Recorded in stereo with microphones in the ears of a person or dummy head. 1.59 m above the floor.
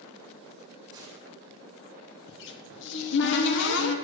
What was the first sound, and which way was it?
A gunshot, 25° right (ahead or behind).